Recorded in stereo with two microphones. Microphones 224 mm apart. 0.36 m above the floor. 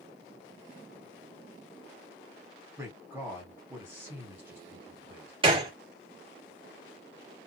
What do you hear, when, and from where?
2.8 s a man speaking: 10° right (ahead or behind), 1.7 m
5.4 s a gunshot: 25° right (ahead or behind), 1.6 m